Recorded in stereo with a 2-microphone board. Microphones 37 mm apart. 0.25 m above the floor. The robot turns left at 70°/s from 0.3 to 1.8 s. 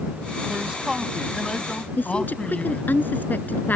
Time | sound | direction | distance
0.5 | a man speaking | 135° right | ?
2.0 | a woman speaking | 60° left (ahead or behind) | ?